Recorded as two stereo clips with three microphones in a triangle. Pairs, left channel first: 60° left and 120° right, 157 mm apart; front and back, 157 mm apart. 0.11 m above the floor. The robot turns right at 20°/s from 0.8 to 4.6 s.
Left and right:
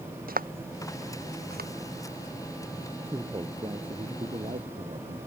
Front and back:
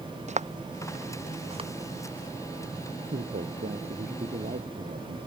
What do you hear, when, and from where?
0.3 s footsteps: 140° right; by 1.7 s 125° right
3.1 s a man speaking: 170° left; by 5.2 s 160° right